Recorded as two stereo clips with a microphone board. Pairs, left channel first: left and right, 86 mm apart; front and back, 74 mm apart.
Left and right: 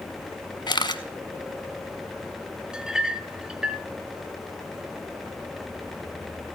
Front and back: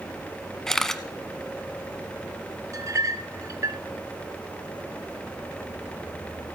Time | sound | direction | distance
0.7 | a camera shutter | 85° left | 0.9 m
2.7 | a clink | 170° right | 1.0 m